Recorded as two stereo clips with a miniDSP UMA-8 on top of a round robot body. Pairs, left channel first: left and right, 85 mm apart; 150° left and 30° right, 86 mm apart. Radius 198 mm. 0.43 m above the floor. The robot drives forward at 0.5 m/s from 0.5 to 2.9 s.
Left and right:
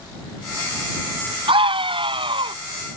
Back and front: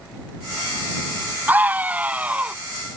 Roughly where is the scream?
Right.